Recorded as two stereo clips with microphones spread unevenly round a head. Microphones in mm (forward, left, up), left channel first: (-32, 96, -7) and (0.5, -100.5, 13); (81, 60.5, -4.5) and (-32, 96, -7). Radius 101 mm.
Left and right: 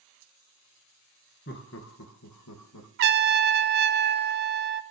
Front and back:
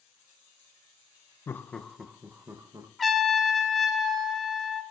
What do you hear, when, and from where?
1.5 s laughter: 55° left, 0.8 m; by 2.9 s 100° left, 1.3 m
3.0 s a trumpet: 110° right, 0.5 m